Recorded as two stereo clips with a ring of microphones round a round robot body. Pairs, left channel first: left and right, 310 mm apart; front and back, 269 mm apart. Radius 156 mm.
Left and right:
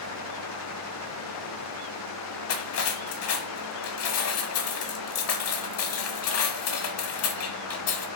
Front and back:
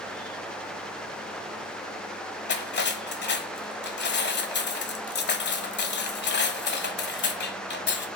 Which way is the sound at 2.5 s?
50° left.